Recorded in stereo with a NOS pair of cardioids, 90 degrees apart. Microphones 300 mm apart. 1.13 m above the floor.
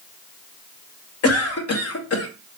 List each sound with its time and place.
1.2 s a cough: 55° left, 1.1 m